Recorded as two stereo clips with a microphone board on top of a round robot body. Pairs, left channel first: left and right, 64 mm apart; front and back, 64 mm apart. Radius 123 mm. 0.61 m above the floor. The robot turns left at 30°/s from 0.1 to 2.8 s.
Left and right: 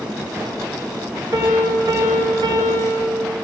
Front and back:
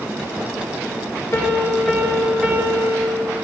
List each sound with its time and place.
1.3 s a piano: 60° right, 1.9 m; by 3.1 s 105° right, 1.9 m